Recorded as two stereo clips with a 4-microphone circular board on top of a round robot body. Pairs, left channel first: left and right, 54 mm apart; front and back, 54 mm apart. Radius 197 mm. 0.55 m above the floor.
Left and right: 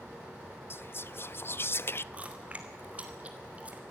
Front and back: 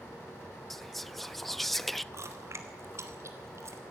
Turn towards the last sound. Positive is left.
turn(degrees=-155)